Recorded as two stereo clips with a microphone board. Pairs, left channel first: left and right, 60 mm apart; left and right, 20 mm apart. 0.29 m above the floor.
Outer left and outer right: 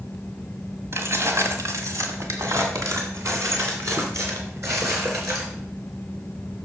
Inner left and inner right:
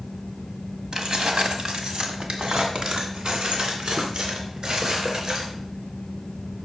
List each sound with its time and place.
0.9 s keys jangling: 45° right (ahead or behind), 1.4 m; by 5.5 s 50° right (ahead or behind), 3.5 m